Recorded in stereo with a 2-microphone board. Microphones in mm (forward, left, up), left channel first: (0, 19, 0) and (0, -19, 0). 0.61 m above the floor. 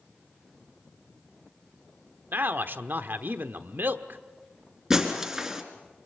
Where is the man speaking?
65° right (ahead or behind), 1.2 m.